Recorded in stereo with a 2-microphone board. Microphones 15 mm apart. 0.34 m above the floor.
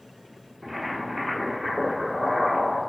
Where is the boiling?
15° right (ahead or behind), 1.2 m.